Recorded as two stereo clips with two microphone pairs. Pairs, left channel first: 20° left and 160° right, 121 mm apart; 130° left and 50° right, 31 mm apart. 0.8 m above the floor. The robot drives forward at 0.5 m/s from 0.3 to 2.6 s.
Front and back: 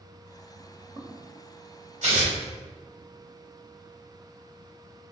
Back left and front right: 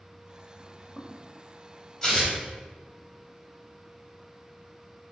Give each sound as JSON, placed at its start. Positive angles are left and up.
{"t": 0.6, "sound": "footsteps", "azimuth_deg": -115, "distance_m": 1.0}
{"t": 2.0, "sound": "tearing paper", "azimuth_deg": -165, "distance_m": 1.3}